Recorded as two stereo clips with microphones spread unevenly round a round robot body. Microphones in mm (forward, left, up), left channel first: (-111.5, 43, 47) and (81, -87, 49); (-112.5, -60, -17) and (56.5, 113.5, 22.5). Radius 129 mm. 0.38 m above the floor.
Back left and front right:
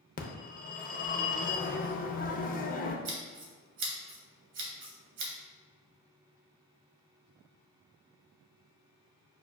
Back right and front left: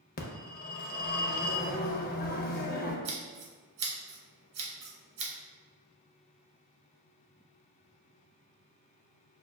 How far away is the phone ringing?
About 0.6 m.